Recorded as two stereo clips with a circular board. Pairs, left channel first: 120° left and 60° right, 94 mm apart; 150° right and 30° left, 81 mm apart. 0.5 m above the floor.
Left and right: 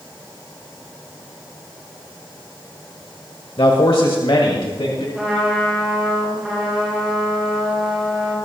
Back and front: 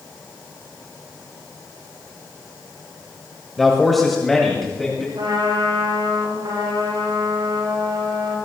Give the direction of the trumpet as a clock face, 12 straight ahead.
11 o'clock.